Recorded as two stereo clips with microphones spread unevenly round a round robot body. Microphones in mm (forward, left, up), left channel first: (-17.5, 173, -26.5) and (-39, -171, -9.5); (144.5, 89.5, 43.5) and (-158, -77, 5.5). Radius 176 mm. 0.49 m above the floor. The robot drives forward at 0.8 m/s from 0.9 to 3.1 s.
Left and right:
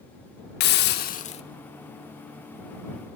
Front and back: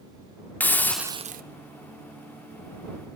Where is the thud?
No thud in this recording.